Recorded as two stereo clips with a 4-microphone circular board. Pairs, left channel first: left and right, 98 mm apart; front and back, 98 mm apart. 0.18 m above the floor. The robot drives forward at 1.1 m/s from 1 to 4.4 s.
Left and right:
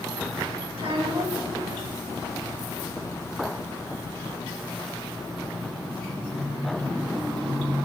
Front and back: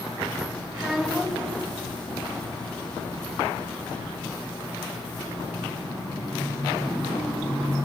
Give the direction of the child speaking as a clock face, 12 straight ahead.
3 o'clock.